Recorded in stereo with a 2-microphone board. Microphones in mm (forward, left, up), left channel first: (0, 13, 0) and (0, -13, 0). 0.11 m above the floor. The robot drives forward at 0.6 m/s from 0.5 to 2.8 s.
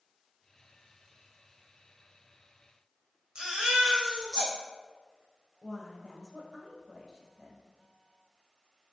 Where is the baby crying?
30° right (ahead or behind), 2.5 m.